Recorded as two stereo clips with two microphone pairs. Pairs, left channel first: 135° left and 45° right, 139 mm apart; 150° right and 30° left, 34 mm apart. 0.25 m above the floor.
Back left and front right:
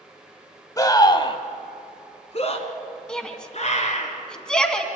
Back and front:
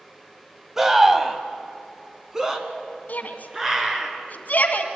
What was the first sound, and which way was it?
A scream, 100° left.